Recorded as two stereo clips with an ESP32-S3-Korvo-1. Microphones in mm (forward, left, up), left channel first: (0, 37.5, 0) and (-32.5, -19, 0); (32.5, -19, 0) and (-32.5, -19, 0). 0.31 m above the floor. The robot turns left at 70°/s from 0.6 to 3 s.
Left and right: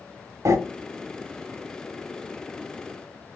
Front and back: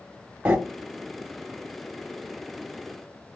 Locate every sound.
0.5 s breathing: 120° right, 0.8 m